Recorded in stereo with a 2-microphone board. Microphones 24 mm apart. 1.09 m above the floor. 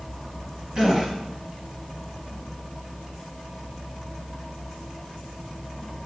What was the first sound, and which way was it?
A gasp, 25° right (ahead or behind).